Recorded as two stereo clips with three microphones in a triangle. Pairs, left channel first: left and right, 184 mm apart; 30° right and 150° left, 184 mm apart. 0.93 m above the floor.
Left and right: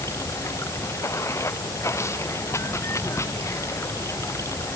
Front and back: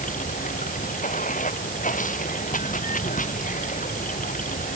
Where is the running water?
15° left.